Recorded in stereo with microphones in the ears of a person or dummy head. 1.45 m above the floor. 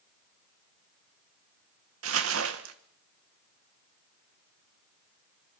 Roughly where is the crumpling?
Right.